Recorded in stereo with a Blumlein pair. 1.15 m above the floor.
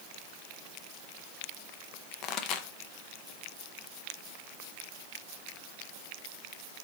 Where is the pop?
35° left, 0.6 m.